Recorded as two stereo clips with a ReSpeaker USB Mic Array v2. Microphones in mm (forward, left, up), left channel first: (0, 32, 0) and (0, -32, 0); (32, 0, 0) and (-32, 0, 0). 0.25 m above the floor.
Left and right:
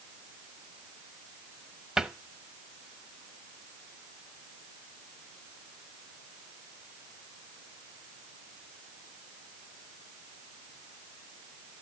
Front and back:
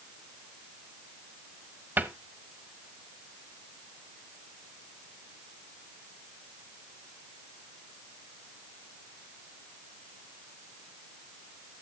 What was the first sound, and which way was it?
A cupboard door, 160° right.